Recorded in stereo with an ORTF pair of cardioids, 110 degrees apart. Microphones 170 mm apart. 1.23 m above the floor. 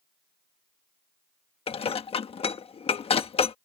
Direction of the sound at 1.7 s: 35° left.